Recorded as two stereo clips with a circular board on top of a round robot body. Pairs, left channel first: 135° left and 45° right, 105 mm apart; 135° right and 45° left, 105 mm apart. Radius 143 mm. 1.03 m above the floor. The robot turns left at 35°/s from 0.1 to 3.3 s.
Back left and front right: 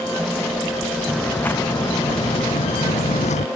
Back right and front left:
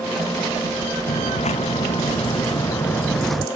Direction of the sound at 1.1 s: 135° right.